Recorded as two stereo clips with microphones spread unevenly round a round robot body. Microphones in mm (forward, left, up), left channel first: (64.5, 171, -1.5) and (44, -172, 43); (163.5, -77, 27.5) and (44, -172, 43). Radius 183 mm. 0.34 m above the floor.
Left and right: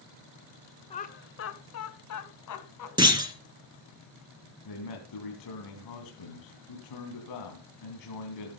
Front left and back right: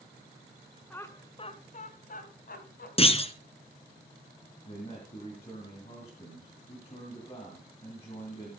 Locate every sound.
0.9 s laughter: 90° left, 1.2 m; by 2.9 s 60° left, 3.5 m
3.0 s a clunk: 15° right, 2.5 m
4.7 s a man speaking: 105° left, 3 m